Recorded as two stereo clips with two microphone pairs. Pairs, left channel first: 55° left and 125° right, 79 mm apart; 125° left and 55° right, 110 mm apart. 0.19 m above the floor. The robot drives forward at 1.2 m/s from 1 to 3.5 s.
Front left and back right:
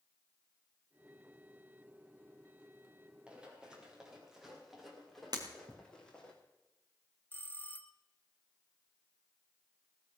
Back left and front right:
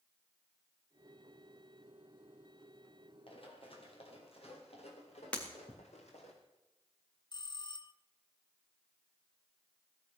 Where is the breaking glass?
160° right, 4 m.